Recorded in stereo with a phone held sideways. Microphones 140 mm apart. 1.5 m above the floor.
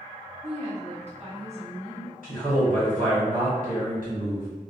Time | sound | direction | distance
0.4 | a woman speaking | 50° right (ahead or behind) | 1.0 m
2.2 | a man speaking | 75° right (ahead or behind) | 1.5 m